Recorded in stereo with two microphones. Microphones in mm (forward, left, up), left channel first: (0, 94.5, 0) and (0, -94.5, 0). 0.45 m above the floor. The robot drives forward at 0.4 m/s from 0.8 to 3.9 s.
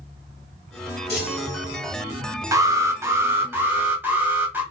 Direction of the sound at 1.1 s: 60° left (ahead or behind).